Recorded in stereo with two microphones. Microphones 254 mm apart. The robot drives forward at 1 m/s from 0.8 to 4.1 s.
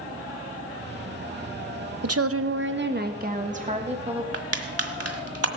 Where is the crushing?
70° right (ahead or behind), 1.5 m.